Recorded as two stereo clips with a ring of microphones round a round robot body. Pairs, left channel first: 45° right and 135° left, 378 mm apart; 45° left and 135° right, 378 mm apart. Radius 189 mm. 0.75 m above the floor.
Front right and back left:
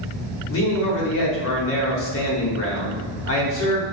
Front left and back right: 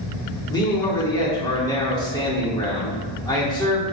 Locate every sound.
0.5 s a man speaking: 25° right, 1.2 m